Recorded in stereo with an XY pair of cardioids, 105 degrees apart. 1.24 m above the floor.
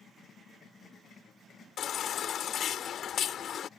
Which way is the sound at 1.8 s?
60° left.